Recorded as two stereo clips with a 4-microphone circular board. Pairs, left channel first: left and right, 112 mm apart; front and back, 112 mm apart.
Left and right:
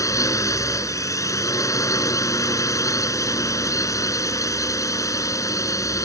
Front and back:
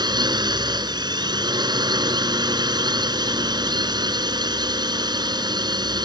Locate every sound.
0.0 s a drone: 140° left